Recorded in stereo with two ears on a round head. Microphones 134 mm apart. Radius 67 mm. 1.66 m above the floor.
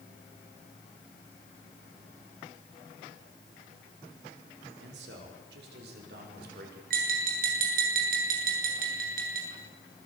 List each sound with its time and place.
4.8 s a man speaking: 80° right, 6 m; by 6.8 s 70° right (ahead or behind), 7.5 m
6.9 s tapping: 65° right (ahead or behind), 8.5 m